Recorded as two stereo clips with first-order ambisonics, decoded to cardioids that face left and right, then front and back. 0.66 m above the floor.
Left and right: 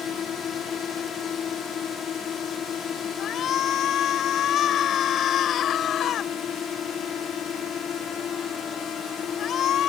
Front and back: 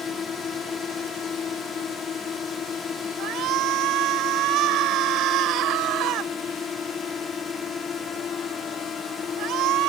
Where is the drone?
50° left.